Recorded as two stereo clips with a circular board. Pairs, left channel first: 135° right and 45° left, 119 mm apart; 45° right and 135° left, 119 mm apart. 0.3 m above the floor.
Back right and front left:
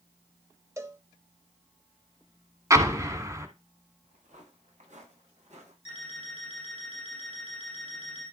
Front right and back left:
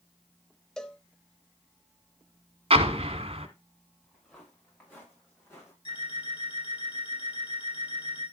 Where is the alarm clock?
5° left, 6 m.